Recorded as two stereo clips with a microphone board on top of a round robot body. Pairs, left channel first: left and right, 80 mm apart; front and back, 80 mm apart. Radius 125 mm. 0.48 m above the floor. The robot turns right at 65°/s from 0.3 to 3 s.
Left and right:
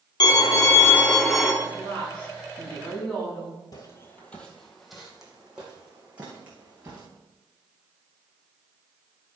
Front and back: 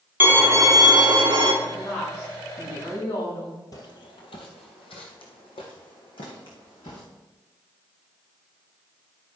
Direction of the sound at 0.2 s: 115° left.